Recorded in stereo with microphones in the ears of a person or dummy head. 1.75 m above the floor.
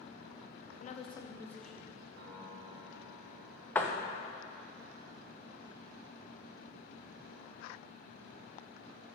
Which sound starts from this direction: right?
A piano, at 2.2 s.